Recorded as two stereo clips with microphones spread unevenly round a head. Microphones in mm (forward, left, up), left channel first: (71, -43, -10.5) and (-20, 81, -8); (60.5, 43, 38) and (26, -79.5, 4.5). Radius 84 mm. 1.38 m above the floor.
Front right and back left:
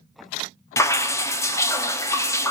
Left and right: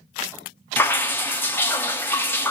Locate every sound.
0.8 s dripping: 15° left, 0.5 m